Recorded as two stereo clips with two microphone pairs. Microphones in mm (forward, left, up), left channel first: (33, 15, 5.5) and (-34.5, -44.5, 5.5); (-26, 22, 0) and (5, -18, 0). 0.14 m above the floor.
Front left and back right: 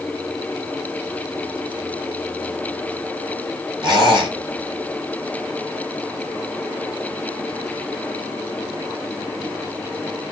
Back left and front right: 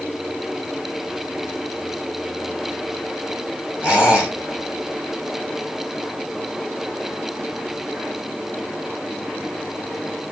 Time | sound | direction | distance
3.8 | a squeak | 115° right | 2 m